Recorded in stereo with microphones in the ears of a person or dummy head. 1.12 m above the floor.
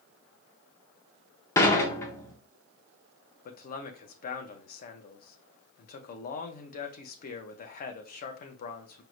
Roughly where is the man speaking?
Left.